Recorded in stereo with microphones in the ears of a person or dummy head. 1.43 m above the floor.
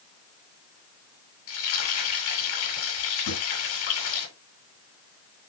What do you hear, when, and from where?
1.5 s frying: 75° left (ahead or behind), 9.5 m
3.3 s a drawer: 75° left (ahead or behind), 8 m